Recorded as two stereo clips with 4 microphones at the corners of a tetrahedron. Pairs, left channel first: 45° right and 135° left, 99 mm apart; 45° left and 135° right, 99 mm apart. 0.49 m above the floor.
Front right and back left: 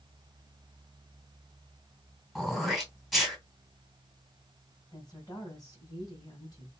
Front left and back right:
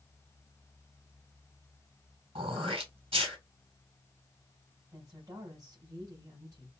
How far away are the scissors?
No scissors in this recording.